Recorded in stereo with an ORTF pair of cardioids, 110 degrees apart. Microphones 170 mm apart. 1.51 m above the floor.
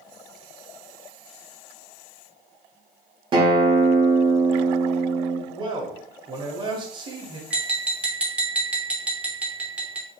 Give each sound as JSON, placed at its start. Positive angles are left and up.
{"t": 3.3, "sound": "a guitar", "azimuth_deg": -30, "distance_m": 0.8}
{"t": 5.5, "sound": "a man speaking", "azimuth_deg": -30, "distance_m": 1.0}
{"t": 7.5, "sound": "tapping", "azimuth_deg": -5, "distance_m": 0.7}